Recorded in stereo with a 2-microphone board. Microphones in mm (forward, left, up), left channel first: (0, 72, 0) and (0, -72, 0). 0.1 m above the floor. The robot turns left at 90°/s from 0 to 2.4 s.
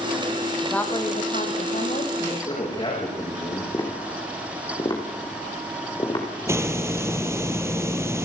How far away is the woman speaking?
About 3 m.